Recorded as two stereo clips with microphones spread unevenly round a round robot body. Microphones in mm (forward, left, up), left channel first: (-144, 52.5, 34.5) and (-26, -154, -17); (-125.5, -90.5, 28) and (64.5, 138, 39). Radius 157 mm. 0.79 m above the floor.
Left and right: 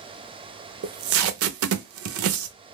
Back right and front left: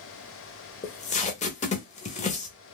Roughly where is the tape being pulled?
Ahead right.